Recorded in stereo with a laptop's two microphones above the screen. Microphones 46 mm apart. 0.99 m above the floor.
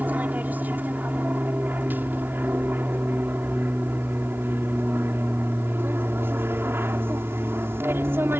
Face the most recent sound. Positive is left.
turn(degrees=-60)  # may be behind; listen again after turning